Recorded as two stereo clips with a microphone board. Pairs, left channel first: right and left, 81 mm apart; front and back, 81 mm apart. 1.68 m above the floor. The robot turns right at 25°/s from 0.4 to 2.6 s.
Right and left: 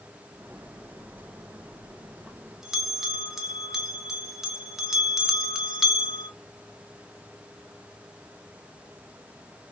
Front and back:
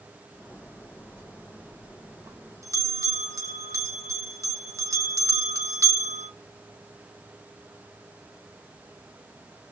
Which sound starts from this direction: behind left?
A bell, at 1.2 s.